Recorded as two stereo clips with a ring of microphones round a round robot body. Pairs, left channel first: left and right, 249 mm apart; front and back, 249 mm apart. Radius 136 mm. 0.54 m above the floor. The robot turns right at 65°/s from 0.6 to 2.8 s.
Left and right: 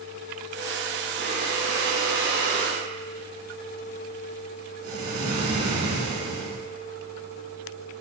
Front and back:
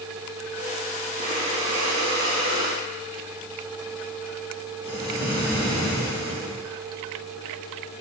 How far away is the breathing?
About 1.2 m.